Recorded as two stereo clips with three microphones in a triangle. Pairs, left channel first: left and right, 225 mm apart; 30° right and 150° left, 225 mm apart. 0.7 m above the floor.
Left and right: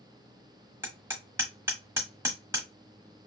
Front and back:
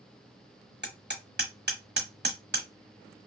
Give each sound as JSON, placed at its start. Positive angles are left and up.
{"t": 0.8, "sound": "hammering", "azimuth_deg": -170, "distance_m": 1.0}